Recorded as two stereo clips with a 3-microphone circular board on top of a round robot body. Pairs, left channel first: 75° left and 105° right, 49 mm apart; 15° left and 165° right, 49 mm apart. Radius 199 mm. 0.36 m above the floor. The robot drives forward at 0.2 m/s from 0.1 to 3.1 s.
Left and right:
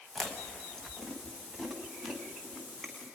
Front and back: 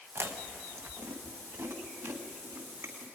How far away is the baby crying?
I don't hear a baby crying.